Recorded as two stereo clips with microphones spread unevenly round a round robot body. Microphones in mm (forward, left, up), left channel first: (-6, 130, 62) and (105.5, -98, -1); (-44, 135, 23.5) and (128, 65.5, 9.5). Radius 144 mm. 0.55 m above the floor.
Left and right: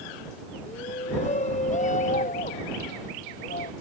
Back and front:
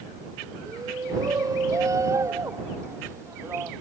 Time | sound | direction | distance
0.7 | a shout | 50° left | ?